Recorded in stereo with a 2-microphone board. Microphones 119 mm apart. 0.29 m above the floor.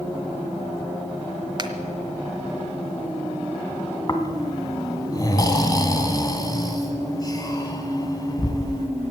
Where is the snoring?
30° left (ahead or behind), 1.7 m.